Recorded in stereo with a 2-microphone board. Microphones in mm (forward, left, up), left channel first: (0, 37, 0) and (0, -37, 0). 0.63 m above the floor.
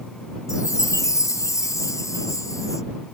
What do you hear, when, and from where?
0.5 s a chime: 45° left (ahead or behind)